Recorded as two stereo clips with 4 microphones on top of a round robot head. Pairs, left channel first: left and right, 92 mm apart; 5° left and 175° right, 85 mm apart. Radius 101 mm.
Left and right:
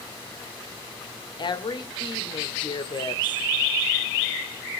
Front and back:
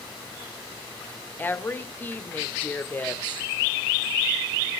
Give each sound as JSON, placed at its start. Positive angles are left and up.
{"t": 1.4, "sound": "a woman speaking", "azimuth_deg": 70, "distance_m": 1.7}